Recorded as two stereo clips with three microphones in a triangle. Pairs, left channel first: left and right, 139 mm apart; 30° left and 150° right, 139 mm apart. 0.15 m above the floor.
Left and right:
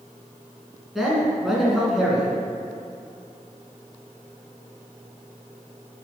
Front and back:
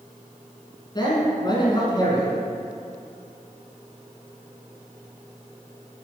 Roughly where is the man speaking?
Ahead.